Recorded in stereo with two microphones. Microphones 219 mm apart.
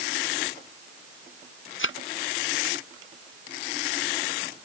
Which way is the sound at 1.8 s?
65° left (ahead or behind).